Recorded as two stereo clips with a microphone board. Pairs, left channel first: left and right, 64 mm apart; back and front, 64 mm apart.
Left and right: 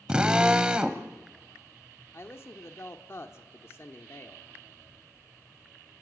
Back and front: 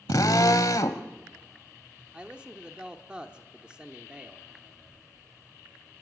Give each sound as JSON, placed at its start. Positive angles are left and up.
{"t": 0.1, "sound": "a drill", "azimuth_deg": -165, "distance_m": 1.0}
{"t": 2.1, "sound": "a man speaking", "azimuth_deg": 70, "distance_m": 1.2}